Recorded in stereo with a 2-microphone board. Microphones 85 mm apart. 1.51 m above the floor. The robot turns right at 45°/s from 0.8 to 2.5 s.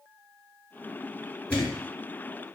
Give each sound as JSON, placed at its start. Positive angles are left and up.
{"t": 1.5, "sound": "a thud", "side_deg": 15, "distance_m": 1.9}